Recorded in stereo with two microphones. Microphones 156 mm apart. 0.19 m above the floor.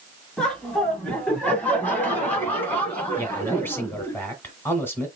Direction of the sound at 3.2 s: 15° left (ahead or behind).